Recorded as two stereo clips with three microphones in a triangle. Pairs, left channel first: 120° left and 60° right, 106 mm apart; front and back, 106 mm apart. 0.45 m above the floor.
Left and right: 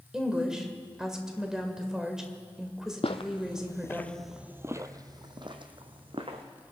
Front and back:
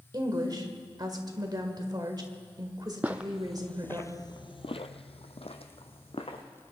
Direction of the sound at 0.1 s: 140° right.